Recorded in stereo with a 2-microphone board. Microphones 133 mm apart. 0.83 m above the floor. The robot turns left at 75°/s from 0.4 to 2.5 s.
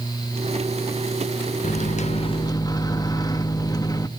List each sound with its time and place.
1.6 s a microwave: 95° left, 0.6 m; by 4.1 s 30° left, 0.6 m